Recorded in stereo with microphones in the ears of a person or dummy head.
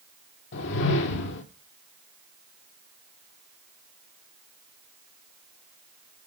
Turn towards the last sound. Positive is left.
turn(degrees=65)  # may be behind; listen again after turning